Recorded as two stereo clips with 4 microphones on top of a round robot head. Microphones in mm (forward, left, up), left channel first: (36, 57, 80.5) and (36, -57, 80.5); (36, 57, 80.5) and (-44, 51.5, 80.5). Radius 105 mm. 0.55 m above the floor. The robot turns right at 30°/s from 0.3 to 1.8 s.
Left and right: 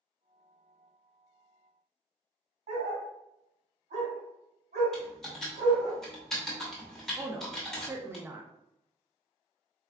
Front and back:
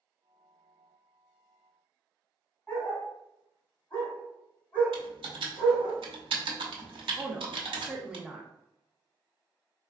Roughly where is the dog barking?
Right.